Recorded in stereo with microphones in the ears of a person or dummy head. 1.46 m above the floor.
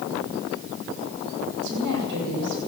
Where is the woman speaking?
65° right (ahead or behind), 7 m.